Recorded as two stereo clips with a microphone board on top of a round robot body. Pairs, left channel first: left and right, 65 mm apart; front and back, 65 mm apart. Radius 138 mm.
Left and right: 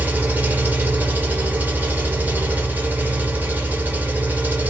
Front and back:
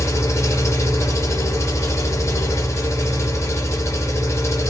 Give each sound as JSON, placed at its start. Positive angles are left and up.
{"t": 0.0, "sound": "an engine running", "azimuth_deg": -30, "distance_m": 1.6}